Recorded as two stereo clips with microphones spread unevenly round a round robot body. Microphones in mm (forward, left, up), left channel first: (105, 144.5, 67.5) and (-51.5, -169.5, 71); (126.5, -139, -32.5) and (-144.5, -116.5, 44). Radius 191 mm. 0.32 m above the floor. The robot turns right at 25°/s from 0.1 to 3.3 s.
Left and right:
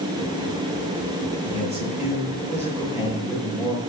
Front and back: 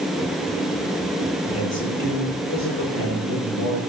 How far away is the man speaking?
About 5.5 m.